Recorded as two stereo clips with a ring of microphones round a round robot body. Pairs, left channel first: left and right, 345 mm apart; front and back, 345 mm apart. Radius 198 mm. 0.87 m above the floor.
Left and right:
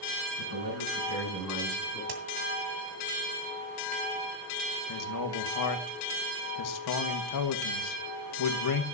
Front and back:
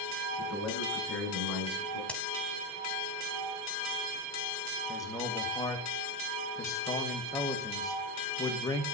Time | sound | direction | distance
0.4 | a man speaking | 115° right | 6.5 m
2.1 | a crack | 85° right | 2 m
4.9 | a man speaking | 80° left | 1.7 m